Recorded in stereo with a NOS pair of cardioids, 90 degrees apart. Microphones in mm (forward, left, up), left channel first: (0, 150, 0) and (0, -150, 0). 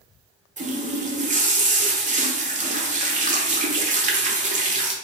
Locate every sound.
0.6 s a running tap: 25° right, 0.6 m